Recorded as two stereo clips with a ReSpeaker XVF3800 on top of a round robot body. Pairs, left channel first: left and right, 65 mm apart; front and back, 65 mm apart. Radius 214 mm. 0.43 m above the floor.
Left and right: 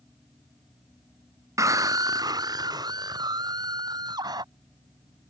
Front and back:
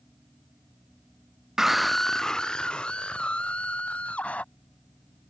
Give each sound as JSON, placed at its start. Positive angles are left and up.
{"t": 1.6, "sound": "a scream", "azimuth_deg": -100}